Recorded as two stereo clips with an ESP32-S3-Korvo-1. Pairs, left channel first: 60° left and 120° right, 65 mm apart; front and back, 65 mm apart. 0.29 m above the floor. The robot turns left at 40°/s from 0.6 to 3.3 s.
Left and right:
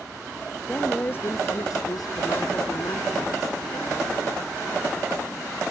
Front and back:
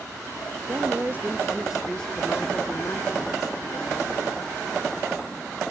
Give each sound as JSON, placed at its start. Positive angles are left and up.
{"t": 0.7, "sound": "a woman speaking", "azimuth_deg": 135}